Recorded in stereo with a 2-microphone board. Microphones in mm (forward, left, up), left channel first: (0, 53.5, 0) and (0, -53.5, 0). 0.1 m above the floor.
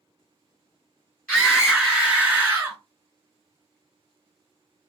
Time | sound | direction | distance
1.3 | a scream | 5° left (ahead or behind) | 1.8 m